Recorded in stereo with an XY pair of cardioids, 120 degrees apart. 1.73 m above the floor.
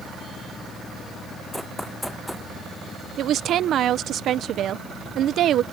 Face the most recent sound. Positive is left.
turn(degrees=-55)